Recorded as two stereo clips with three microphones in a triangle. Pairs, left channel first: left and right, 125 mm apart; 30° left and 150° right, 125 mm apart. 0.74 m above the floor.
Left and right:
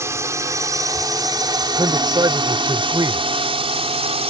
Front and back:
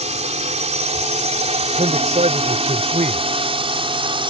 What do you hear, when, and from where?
0.0 s a drone: 155° right; by 4.3 s 110° right
1.8 s a man speaking: 145° right